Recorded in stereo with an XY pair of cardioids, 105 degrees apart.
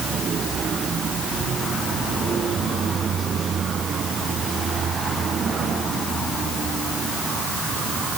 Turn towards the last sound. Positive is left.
No sound to turn to.